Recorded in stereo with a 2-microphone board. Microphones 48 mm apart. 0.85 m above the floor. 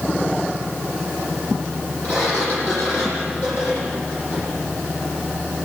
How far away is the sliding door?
About 8.5 m.